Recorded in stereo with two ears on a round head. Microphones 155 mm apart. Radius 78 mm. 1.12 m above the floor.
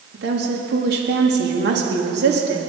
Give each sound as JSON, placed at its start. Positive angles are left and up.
{"t": 0.1, "sound": "a woman speaking", "side_deg": -70, "distance_m": 2.5}